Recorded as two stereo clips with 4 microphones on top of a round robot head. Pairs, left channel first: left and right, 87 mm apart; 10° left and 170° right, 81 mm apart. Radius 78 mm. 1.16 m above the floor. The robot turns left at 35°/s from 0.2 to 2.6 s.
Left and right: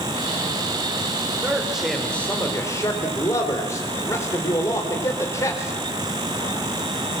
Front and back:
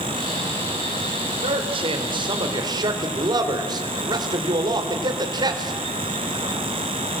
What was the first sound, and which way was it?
A man speaking, 165° right.